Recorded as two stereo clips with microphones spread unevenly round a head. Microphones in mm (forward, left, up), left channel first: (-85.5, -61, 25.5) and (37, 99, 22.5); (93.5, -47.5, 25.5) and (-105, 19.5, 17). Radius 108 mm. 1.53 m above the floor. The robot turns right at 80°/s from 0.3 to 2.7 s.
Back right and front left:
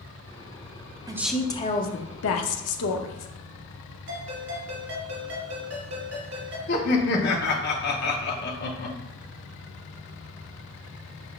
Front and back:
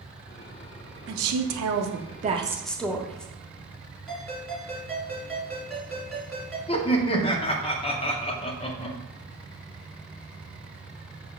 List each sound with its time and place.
1.1 s a woman speaking: 125° left, 0.6 m; by 3.3 s 105° right, 0.6 m
4.1 s a ringtone: 65° left, 1.9 m
6.7 s laughter: 85° right, 0.7 m